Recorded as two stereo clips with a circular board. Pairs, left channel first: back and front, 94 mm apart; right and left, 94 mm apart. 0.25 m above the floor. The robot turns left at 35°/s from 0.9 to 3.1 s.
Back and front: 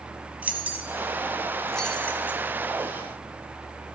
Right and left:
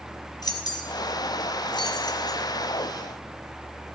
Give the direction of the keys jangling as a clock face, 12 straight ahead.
2 o'clock.